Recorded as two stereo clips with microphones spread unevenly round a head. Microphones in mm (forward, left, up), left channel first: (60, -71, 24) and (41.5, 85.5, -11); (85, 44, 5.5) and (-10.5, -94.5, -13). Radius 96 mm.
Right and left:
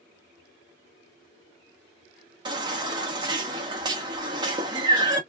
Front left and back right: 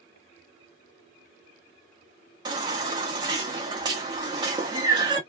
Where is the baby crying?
165° left, 0.6 m.